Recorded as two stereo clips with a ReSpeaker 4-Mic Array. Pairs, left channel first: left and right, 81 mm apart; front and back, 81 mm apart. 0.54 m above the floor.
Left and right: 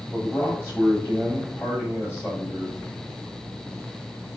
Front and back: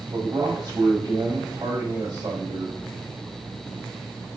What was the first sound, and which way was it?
A man speaking, 150° left.